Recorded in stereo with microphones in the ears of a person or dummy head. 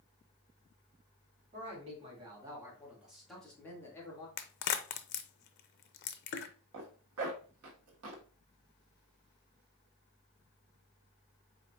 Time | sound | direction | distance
1.5 | a man speaking | 35° right (ahead or behind) | 2.5 m
4.4 | a crack | 50° left (ahead or behind) | 0.6 m
6.7 | a zipper | 85° right | 1.5 m